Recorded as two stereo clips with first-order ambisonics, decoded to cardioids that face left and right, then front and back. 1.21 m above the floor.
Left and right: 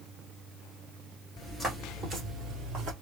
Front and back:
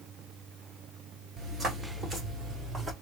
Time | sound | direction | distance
1.4 | footsteps | 170° left | 1.2 m